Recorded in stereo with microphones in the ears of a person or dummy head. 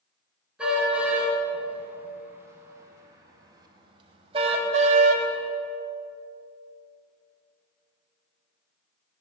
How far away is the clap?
I don't hear a clap.